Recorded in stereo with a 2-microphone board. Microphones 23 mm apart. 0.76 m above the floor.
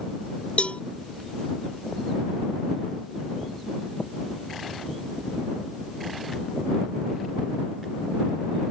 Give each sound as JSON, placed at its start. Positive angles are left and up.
{"t": 0.6, "sound": "a cowbell", "side_deg": 85}